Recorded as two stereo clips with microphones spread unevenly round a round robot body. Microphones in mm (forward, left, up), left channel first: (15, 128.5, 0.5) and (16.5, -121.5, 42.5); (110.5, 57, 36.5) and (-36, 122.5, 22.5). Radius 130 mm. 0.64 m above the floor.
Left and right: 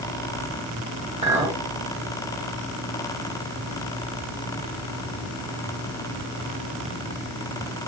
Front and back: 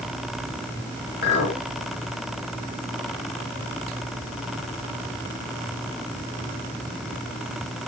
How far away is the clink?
About 1.1 m.